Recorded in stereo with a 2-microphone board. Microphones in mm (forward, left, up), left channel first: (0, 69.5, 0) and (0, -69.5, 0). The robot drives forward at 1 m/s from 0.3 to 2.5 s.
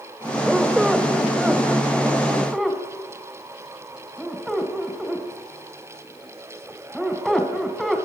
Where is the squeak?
Centre (ahead or behind), 1.2 m.